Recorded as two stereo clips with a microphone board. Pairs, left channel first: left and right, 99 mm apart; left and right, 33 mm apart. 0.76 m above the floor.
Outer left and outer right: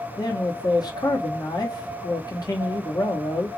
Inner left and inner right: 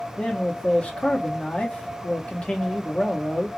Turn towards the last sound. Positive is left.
turn(degrees=40)  # may be behind; listen again after turning